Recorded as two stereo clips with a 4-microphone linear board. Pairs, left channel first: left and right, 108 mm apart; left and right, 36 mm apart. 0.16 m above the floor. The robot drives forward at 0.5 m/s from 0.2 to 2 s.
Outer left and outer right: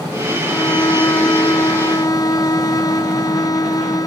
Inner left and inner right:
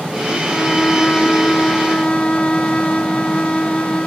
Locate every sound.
0.4 s a violin: 30° left (ahead or behind); by 4.1 s 35° left (ahead or behind)